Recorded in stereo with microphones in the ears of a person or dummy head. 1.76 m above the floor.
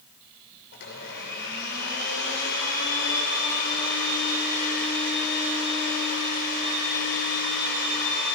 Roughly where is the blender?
Left.